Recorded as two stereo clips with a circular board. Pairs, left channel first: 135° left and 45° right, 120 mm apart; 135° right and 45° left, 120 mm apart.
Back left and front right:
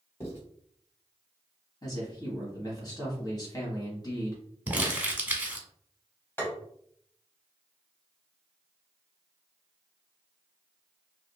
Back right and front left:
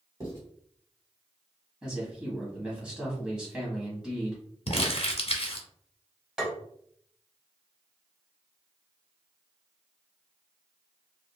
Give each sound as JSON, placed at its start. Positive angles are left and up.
{"t": 0.2, "sound": "writing", "azimuth_deg": 85, "distance_m": 1.6}
{"t": 1.8, "sound": "a man speaking", "azimuth_deg": 125, "distance_m": 1.2}
{"t": 4.7, "sound": "crumpling", "azimuth_deg": -120, "distance_m": 0.7}
{"t": 6.4, "sound": "tapping", "azimuth_deg": 120, "distance_m": 1.1}